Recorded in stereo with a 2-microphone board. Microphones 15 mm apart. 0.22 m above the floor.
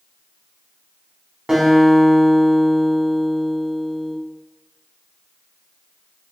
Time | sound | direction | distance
1.5 | a guitar | 50° right (ahead or behind) | 1.0 m